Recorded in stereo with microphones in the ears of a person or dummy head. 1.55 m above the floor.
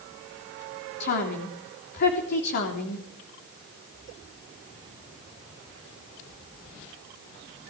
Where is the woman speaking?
50° left (ahead or behind), 3 m.